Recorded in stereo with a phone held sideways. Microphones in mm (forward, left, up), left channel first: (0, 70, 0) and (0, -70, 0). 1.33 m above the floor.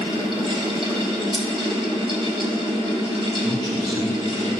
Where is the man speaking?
55° right (ahead or behind), 2.5 m.